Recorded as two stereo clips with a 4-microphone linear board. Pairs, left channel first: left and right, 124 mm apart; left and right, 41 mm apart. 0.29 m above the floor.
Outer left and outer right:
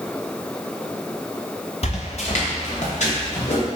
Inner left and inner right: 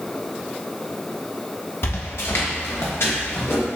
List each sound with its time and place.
1.8 s footsteps: 60° left (ahead or behind), 1.6 m; by 3.6 s 75° left (ahead or behind), 3.5 m